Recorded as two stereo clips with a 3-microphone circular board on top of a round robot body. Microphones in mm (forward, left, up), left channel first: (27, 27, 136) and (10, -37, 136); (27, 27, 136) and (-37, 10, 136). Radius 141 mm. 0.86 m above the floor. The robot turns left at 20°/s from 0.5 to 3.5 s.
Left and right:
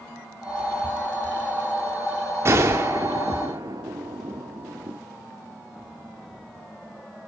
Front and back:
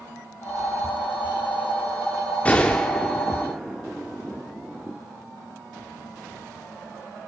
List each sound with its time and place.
2.5 s a gunshot: 60° right, 0.6 m; by 5.0 s 80° right, 0.6 m